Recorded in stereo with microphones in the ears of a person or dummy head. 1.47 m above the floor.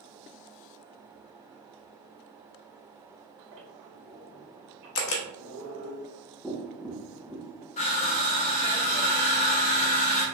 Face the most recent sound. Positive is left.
turn(degrees=35)  # may be behind; listen again after turning